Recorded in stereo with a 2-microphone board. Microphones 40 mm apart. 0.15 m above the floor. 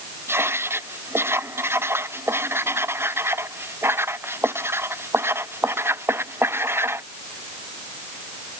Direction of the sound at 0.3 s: 80° right.